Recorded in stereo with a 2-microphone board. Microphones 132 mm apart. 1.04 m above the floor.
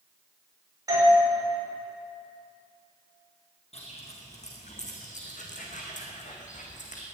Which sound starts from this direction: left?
Footsteps, at 3.7 s.